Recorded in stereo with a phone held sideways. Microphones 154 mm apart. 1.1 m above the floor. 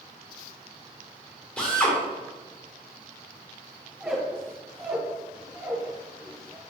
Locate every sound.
1.6 s a drill: 5° left (ahead or behind), 2 m
4.0 s a squeak: 10° right (ahead or behind), 2 m